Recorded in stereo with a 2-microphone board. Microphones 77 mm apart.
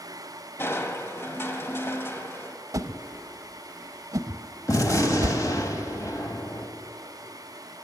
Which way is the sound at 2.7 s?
50° right (ahead or behind).